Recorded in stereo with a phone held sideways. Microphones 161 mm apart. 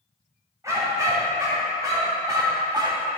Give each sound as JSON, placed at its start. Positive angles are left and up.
{"t": 0.6, "sound": "a dog barking", "side_deg": -20, "distance_m": 2.5}